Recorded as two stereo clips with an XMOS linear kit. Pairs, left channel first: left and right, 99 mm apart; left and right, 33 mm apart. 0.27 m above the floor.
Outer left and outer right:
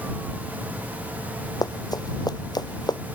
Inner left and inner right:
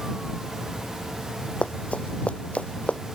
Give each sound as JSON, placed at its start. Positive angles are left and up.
{"t": 1.6, "sound": "running footsteps", "side_deg": 40}